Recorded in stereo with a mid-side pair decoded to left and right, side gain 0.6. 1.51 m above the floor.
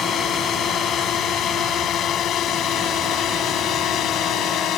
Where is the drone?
45° left; by 4.8 s 55° left.